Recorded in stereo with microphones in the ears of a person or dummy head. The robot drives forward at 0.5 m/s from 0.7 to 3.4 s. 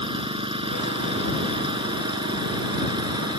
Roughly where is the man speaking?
I don't hear a man speaking.